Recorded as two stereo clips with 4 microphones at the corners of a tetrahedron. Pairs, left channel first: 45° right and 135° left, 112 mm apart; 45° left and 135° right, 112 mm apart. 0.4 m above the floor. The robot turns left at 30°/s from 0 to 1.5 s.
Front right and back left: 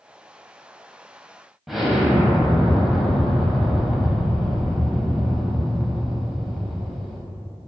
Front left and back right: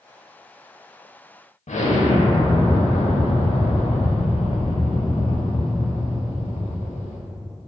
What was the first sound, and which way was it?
An explosion, 50° left.